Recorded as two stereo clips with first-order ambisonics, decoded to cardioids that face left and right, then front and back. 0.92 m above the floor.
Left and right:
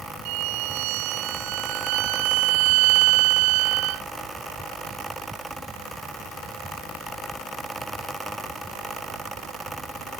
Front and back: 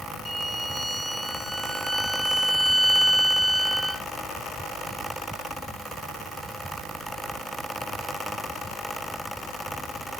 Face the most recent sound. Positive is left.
turn(degrees=-90)